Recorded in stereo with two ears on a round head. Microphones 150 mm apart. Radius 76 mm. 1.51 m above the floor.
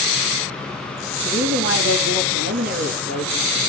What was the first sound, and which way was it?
A woman speaking, 55° right (ahead or behind).